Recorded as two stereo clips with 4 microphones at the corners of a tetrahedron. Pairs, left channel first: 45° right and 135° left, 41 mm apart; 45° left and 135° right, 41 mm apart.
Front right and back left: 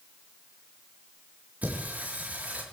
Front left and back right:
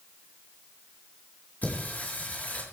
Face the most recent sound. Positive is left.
turn(degrees=90)